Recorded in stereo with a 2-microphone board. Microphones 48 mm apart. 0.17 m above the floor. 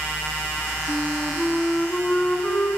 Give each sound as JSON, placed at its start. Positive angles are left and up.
{"t": 0.9, "sound": "a flute", "side_deg": 25, "distance_m": 1.3}